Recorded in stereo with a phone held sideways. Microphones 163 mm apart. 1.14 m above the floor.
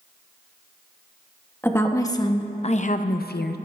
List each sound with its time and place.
1.6 s a woman speaking: 15° left (ahead or behind), 1.2 m; by 3.6 s 85° left, 0.6 m